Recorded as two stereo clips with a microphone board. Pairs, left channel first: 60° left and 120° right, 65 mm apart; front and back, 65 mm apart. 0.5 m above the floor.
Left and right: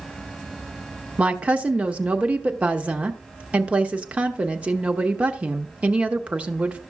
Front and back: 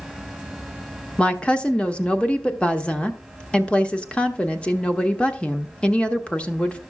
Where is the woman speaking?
65° right, 1.0 m.